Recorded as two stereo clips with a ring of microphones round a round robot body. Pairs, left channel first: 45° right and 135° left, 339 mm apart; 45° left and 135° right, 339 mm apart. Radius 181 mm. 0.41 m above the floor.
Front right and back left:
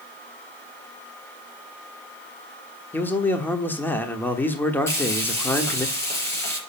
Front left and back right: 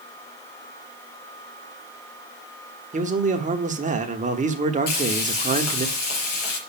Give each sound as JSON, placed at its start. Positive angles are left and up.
{"t": 2.9, "sound": "a man speaking", "azimuth_deg": -120, "distance_m": 1.2}
{"t": 4.9, "sound": "frying", "azimuth_deg": 40, "distance_m": 4.0}